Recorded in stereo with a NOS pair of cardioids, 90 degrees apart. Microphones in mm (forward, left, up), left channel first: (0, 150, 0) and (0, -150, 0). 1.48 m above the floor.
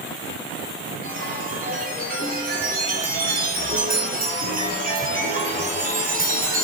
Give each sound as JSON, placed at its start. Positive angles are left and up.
{"t": 1.0, "sound": "a chime", "azimuth_deg": -30, "distance_m": 8.5}